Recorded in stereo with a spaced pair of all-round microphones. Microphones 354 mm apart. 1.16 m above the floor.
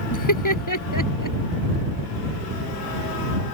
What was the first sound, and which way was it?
Laughter, 55° left (ahead or behind).